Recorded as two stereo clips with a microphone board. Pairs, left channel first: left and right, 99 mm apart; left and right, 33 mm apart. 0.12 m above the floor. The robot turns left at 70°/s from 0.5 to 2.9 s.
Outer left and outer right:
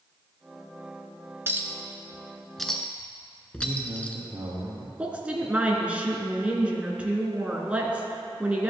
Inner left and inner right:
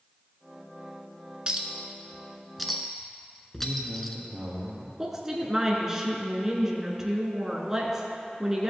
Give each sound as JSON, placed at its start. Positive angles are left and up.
{"t": 1.5, "sound": "a clink", "side_deg": -25, "distance_m": 0.7}
{"t": 3.6, "sound": "a man speaking", "side_deg": -45, "distance_m": 1.8}
{"t": 5.0, "sound": "a woman speaking", "side_deg": -10, "distance_m": 1.1}